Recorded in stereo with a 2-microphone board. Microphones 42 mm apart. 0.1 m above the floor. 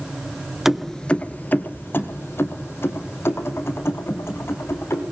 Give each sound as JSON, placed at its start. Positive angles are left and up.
{"t": 0.7, "sound": "keys jangling", "side_deg": -10, "distance_m": 0.9}